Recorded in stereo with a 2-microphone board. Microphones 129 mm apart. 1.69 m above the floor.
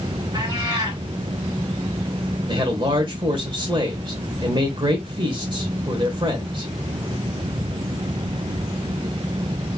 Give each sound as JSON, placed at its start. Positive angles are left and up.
{"t": 0.3, "sound": "a cat meowing", "side_deg": -35, "distance_m": 2.0}
{"t": 2.5, "sound": "a man speaking", "side_deg": -40, "distance_m": 1.0}